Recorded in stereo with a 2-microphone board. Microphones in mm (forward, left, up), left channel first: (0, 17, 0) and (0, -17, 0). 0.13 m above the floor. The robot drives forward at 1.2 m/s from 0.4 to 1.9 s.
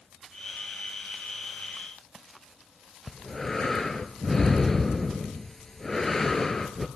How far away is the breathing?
About 0.7 m.